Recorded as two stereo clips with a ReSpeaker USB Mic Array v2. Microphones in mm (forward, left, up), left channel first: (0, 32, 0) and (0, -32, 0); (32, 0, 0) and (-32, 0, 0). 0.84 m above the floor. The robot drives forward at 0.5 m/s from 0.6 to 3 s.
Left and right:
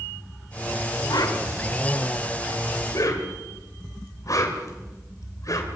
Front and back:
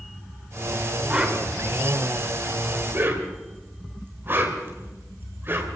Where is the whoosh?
105° left, 2.5 m; by 5.7 s 125° left, 2.5 m.